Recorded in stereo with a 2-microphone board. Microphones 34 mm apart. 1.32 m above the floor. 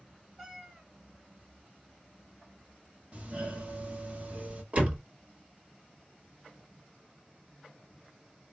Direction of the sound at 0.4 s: 15° right (ahead or behind).